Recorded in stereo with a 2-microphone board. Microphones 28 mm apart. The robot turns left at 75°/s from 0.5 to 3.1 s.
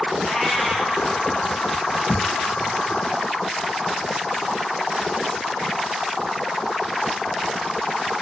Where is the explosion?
75° right (ahead or behind), 5 m; by 2.7 s 30° right (ahead or behind), 5 m.